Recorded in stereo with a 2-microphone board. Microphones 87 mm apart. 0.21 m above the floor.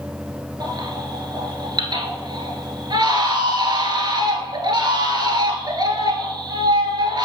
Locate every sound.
0.6 s a baby crying: 55° right (ahead or behind), 1.3 m